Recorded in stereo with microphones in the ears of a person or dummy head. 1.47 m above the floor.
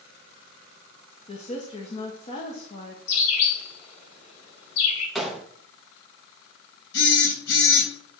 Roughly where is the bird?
Left.